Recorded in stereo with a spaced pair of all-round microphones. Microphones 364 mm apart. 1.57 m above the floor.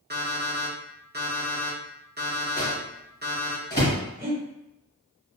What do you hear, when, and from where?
0.1 s an alarm clock: 25° right (ahead or behind), 0.8 m
2.6 s a microwave: 25° left (ahead or behind), 1.1 m
4.2 s breathing: 25° right (ahead or behind), 1.0 m